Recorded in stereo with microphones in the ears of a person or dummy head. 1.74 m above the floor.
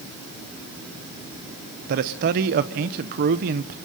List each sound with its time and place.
1.9 s a man speaking: 40° right (ahead or behind), 0.8 m